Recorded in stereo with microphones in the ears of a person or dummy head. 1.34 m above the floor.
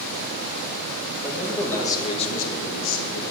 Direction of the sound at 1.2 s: 5° left (ahead or behind).